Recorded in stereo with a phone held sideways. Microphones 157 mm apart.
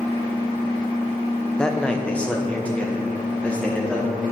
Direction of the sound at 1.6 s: 5° left (ahead or behind).